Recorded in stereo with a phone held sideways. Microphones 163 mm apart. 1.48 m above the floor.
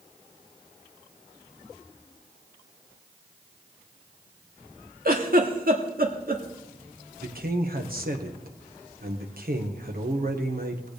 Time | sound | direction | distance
5.0 | a giggle | 60° right (ahead or behind) | 1.6 m
7.2 | a man speaking | 65° right (ahead or behind) | 1.5 m